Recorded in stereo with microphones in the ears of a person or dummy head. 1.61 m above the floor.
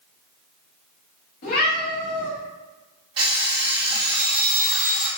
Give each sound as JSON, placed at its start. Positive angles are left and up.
{"t": 1.4, "sound": "a cat meowing", "side_deg": 50, "distance_m": 1.5}
{"t": 3.2, "sound": "an alarm clock", "side_deg": -30, "distance_m": 1.7}